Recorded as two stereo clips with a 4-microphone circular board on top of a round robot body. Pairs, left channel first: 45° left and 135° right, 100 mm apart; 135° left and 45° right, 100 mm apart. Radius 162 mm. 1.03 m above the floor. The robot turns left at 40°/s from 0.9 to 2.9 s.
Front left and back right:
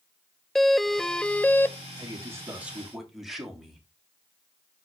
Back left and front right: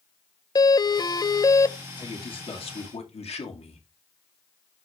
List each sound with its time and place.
0.6 s a doorbell: 130° left, 0.6 m; by 1.8 s 95° left, 0.6 m
2.0 s a man speaking: 175° left, 2.5 m; by 3.9 s 135° left, 2.5 m